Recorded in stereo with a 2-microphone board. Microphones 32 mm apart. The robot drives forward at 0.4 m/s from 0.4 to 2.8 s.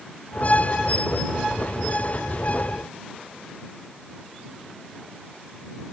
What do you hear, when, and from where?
Only background noise.